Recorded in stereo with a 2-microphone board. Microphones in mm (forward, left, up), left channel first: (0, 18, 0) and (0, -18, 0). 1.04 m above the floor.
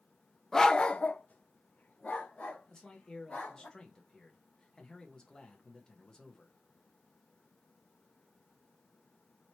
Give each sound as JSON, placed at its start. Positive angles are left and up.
{"t": 0.5, "sound": "a dog barking", "side_deg": 10, "distance_m": 0.7}
{"t": 2.7, "sound": "a man speaking", "side_deg": 20, "distance_m": 1.4}